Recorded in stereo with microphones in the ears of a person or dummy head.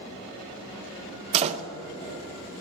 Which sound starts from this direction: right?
A door slam, at 1.3 s.